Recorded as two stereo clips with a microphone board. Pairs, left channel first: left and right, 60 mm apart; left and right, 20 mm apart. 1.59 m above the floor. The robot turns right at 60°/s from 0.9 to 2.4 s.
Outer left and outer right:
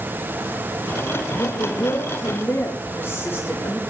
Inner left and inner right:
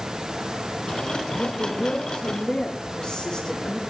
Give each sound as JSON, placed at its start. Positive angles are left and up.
{"t": 1.4, "sound": "a woman speaking", "azimuth_deg": 85, "distance_m": 2.5}